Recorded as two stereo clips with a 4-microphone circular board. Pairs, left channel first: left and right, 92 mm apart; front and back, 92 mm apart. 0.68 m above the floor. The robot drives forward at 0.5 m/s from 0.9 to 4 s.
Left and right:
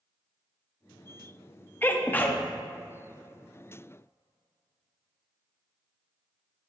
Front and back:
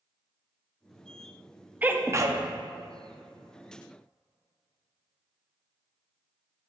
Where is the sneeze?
130° left, 0.6 m; by 2.4 s 155° left, 0.7 m.